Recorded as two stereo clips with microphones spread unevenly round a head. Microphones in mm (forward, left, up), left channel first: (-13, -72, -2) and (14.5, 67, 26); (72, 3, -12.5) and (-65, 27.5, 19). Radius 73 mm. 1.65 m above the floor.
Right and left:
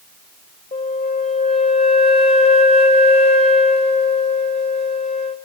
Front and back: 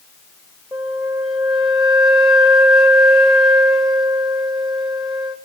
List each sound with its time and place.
0.7 s a flute: 130° right, 0.8 m